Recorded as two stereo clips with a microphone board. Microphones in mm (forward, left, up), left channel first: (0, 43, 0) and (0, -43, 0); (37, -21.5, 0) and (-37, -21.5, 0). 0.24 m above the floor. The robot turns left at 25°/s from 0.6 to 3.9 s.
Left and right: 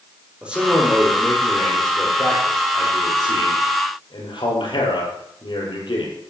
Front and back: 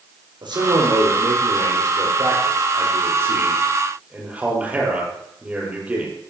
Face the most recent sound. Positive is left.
turn(degrees=110)